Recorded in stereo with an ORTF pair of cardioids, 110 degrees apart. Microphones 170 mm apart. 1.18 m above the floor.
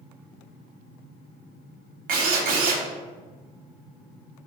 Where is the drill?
70° right, 0.7 m.